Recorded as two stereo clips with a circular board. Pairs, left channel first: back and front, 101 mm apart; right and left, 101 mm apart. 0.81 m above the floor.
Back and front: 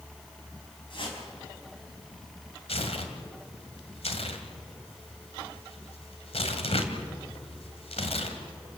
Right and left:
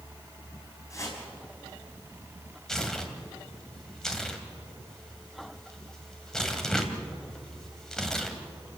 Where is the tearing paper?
175° right, 2 m.